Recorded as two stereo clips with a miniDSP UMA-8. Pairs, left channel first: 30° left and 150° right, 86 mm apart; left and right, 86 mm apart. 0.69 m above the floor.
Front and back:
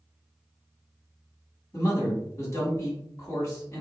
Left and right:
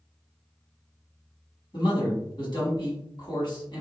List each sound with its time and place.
1.7 s a man speaking: 80° left, 1.9 m